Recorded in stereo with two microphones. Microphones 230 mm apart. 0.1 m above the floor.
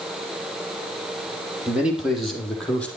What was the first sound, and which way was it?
A man speaking, 5° right (ahead or behind).